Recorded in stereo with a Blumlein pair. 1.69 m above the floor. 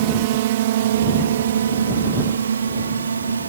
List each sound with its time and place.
0.0 s a drone: 50° right; by 3.5 s 75° right